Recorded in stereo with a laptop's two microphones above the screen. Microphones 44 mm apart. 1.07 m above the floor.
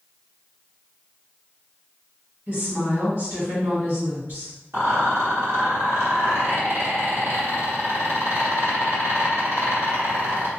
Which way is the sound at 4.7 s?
80° right.